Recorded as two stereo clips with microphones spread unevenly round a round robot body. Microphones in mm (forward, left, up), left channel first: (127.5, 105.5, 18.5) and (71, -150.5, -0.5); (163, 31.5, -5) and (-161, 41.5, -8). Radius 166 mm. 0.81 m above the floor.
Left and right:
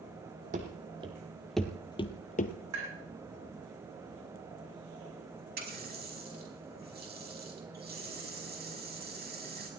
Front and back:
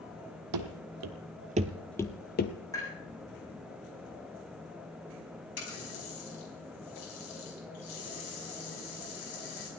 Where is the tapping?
80° right, 7 m.